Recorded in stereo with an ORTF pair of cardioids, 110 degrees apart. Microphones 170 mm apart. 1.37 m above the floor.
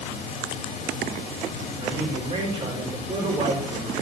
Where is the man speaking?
30° right, 6.5 m.